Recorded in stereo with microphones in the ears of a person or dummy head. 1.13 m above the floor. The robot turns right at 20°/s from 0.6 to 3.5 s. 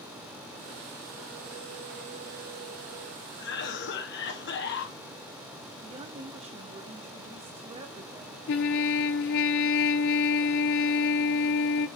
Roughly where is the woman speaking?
Right.